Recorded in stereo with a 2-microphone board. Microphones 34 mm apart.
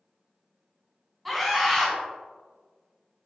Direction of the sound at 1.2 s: Centre (ahead or behind).